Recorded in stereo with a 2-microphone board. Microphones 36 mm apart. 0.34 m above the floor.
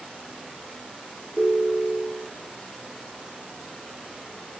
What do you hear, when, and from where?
1.4 s a ringtone: 5° right (ahead or behind), 9 m